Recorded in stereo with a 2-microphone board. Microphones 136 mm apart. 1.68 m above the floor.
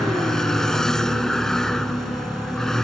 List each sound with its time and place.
0.0 s a vehicle: 5° left (ahead or behind)